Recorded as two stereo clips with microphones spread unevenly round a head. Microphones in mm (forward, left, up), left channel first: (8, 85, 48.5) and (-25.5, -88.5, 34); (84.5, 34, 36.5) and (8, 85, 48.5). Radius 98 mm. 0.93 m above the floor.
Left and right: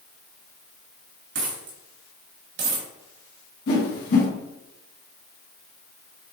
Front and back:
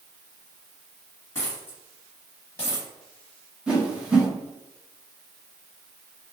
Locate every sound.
1.4 s a dropped coin: 115° right, 1.1 m
3.7 s a whoosh: 65° left, 1.4 m